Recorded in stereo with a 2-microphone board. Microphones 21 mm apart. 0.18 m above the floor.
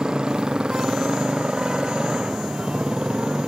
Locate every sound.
0.0 s a motorcycle: 45° right (ahead or behind)